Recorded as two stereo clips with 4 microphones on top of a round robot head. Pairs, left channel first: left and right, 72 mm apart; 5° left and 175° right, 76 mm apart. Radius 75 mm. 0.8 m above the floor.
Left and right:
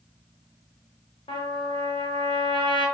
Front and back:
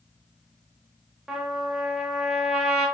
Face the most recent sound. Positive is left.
turn(degrees=105)